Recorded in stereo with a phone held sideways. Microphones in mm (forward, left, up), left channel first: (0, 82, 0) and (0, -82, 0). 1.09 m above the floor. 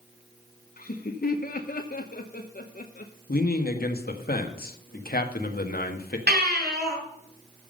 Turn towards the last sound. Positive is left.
turn(degrees=-80)